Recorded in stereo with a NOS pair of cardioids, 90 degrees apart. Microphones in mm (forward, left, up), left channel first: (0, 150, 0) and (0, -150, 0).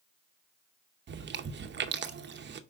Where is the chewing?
40° right, 0.8 m.